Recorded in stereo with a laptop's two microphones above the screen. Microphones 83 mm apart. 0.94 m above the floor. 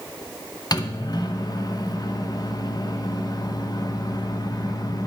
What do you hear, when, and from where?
0.7 s a microwave: 50° left (ahead or behind), 0.7 m